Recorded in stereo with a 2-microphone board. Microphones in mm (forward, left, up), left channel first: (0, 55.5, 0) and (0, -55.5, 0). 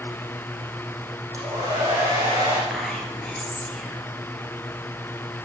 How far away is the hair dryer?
About 6.5 m.